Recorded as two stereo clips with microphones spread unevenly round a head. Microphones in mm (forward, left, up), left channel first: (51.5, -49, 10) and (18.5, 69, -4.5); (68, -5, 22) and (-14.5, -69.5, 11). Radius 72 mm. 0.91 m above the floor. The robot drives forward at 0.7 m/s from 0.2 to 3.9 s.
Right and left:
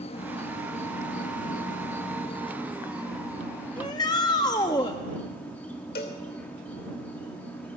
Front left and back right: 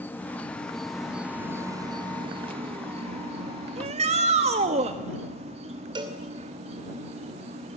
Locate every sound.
0.0 s an insect: 35° right, 1.3 m; by 7.8 s 155° right, 1.8 m
3.8 s a shout: 135° right, 1.0 m; by 5.0 s 140° right, 1.1 m
6.0 s a cowbell: 100° right, 2.5 m